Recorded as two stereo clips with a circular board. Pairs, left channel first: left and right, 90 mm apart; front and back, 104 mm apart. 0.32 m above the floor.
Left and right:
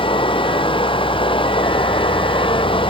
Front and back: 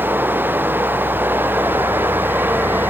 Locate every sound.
0.0 s running water: 110° left